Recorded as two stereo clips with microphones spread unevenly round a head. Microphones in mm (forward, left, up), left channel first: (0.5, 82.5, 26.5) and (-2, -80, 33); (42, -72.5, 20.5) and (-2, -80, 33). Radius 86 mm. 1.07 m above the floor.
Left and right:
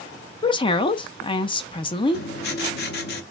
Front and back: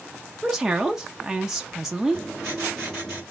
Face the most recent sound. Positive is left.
turn(degrees=110)